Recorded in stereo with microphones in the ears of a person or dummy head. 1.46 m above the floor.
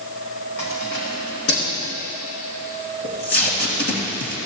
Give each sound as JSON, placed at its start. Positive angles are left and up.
{"t": 0.6, "sound": "keys jangling", "side_deg": 75, "distance_m": 2.5}
{"t": 3.0, "sound": "tape being pulled", "side_deg": 60, "distance_m": 2.0}